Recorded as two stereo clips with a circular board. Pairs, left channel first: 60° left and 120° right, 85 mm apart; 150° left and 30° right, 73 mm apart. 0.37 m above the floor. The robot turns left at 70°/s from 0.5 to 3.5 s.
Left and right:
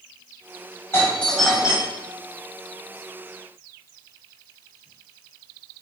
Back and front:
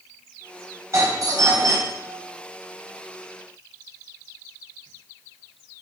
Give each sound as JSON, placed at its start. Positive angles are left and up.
{"t": 0.9, "sound": "a doorbell", "azimuth_deg": 5, "distance_m": 3.0}